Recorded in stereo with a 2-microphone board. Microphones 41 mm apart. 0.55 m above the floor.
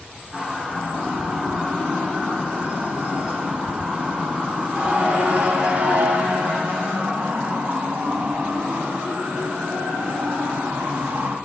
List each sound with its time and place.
0.3 s a siren: 30° right (ahead or behind), 7.5 m; by 11.4 s 70° right (ahead or behind), 4.5 m